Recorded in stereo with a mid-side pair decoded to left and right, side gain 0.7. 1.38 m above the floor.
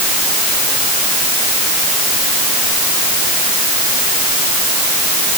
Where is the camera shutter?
No camera shutter in this recording.